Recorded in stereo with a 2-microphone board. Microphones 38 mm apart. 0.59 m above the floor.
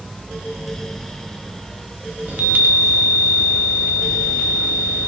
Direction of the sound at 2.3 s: 50° right (ahead or behind).